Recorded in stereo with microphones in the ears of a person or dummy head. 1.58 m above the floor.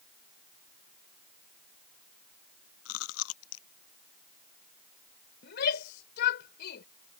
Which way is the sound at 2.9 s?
80° left.